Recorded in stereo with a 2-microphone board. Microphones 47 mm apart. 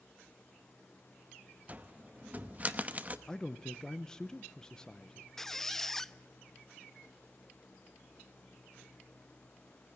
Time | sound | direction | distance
1.7 | a cupboard door | 35° right (ahead or behind) | 0.9 m
3.3 | a man speaking | 15° left (ahead or behind) | 0.8 m
5.4 | a squeak | 10° left (ahead or behind) | 0.5 m